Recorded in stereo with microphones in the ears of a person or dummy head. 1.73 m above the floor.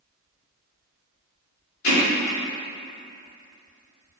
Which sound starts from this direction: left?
Hammering, at 1.8 s.